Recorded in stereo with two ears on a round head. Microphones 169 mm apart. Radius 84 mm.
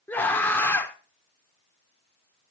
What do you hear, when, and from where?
0.1 s a scream: 10° left (ahead or behind), 1.2 m